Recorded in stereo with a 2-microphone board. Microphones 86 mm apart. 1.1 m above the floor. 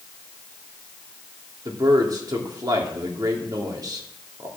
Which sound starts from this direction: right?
A man speaking, at 1.6 s.